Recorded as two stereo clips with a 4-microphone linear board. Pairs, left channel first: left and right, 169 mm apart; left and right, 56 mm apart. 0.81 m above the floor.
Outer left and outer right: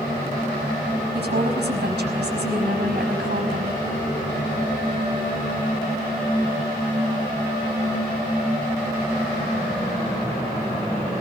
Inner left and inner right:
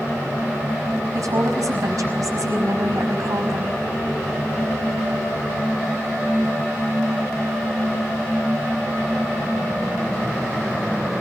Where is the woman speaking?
80° right, 5 m.